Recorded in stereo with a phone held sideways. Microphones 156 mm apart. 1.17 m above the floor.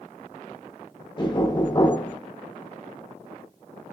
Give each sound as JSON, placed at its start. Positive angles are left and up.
{"t": 1.2, "sound": "knocking", "side_deg": 30, "distance_m": 0.8}